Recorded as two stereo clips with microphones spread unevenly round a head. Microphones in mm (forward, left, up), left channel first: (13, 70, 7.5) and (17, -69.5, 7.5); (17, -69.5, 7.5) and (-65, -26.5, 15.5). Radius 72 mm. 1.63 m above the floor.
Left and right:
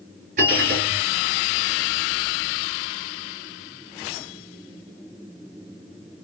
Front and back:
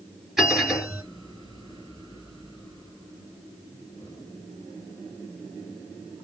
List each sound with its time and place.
0.4 s a bell: 125° right, 4 m